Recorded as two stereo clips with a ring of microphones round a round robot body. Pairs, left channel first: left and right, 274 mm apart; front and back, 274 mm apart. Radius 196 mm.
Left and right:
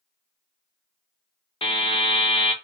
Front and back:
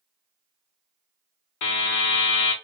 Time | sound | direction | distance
1.6 | a buzzer | 20° left | 1.3 m